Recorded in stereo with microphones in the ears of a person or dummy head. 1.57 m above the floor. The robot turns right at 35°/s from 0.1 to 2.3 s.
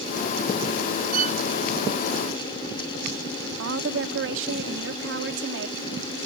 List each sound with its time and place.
1.1 s a violin: 55° right (ahead or behind); by 1.4 s 45° right (ahead or behind)
3.6 s a woman speaking: 80° right